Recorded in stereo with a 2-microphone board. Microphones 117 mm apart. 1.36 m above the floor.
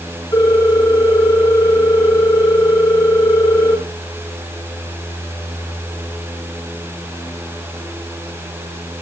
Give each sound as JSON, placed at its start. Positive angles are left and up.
{"t": 0.3, "sound": "a ringtone", "side_deg": 35, "distance_m": 9.0}